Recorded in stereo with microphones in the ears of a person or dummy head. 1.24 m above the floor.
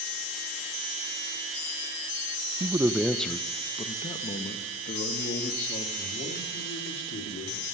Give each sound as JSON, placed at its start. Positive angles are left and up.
{"t": 2.6, "sound": "a man speaking", "side_deg": -25, "distance_m": 0.5}